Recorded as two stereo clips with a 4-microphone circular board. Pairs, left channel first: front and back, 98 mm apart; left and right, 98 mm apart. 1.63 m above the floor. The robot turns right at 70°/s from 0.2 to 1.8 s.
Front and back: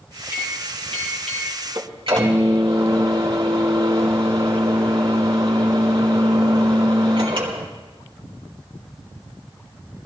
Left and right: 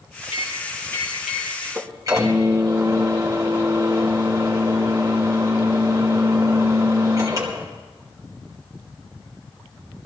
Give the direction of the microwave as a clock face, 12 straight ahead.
8 o'clock.